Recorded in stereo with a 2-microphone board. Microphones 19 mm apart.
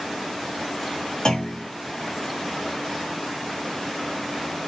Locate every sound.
1.2 s a clunk: 40° left (ahead or behind), 4.5 m